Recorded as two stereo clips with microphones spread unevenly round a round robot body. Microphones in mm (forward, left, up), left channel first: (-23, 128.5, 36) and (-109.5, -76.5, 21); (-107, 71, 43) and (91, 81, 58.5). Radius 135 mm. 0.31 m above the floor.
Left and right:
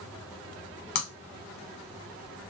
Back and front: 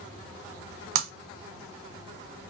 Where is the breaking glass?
20° left, 0.5 m.